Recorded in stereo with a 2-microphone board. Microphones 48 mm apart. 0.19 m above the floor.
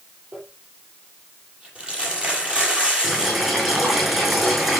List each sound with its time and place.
0.3 s crumpling: 25° right (ahead or behind), 6 m
3.0 s boiling: 10° right (ahead or behind), 6 m